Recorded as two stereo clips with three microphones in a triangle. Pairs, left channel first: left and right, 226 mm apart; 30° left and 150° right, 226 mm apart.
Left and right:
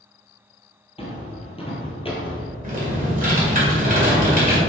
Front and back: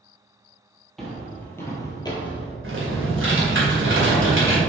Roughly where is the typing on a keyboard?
Behind right.